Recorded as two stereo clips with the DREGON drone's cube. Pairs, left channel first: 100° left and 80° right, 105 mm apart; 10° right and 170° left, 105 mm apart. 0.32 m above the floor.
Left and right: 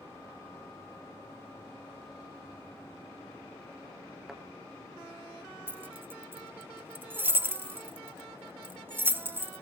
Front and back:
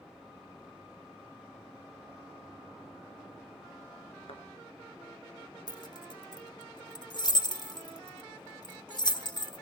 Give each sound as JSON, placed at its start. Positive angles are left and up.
{"t": 4.3, "sound": "a thud", "azimuth_deg": 5, "distance_m": 1.9}
{"t": 5.7, "sound": "keys jangling", "azimuth_deg": -20, "distance_m": 0.9}